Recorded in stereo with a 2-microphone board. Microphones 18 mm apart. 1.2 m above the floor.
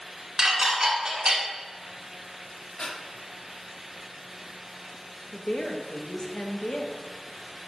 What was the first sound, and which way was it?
Dishes clattering, 30° right (ahead or behind).